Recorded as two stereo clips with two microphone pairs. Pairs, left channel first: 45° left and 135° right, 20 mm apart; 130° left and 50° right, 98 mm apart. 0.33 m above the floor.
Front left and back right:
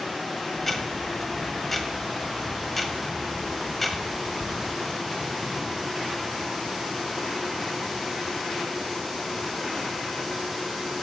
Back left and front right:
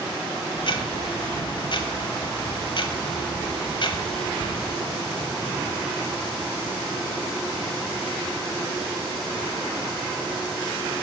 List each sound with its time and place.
0.6 s ticking: 125° left, 1.1 m